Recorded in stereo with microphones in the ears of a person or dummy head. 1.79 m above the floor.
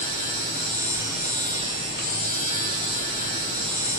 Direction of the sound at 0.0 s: 30° left (ahead or behind).